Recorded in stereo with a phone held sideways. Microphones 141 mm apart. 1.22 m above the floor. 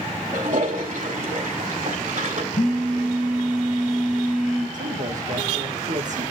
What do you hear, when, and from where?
0.3 s a toilet flushing: 65° right (ahead or behind), 2.5 m
2.5 s a phone buzzing: 65° left (ahead or behind), 4.5 m
4.7 s a man speaking: 65° right (ahead or behind), 1.6 m